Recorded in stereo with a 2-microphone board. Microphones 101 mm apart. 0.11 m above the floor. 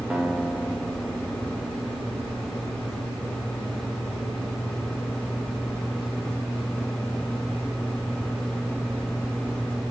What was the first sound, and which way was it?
A guitar, 10° right (ahead or behind).